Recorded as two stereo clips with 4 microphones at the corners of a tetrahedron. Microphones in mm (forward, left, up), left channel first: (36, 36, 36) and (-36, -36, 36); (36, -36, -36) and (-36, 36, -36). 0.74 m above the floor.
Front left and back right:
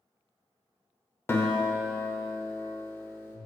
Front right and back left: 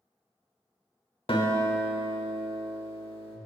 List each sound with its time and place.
1.3 s a guitar: 20° right, 0.9 m